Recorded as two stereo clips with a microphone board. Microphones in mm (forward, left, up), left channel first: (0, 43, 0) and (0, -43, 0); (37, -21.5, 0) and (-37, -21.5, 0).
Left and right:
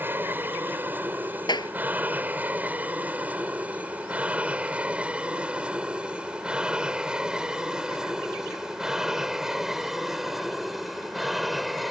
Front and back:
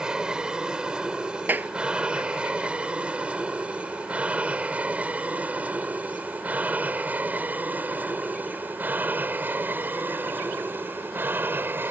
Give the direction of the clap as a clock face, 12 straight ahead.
8 o'clock.